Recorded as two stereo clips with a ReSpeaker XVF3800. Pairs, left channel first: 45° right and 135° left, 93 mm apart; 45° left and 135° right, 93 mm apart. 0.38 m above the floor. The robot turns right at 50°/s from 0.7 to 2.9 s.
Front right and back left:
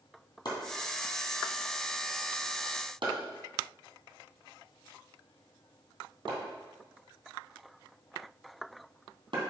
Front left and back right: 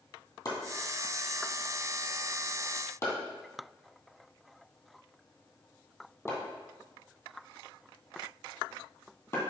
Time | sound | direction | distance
0.5 | chopping | straight ahead | 2.5 m